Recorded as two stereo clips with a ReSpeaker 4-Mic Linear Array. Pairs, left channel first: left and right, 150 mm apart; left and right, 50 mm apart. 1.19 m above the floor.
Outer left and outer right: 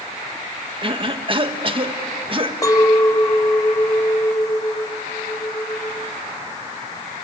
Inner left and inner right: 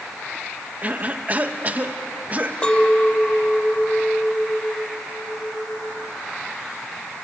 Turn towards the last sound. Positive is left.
turn(degrees=20)  # may be behind; listen again after turning